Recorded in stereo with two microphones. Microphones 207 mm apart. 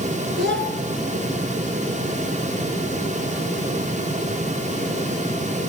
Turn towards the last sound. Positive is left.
turn(degrees=-65)  # may be behind; listen again after turning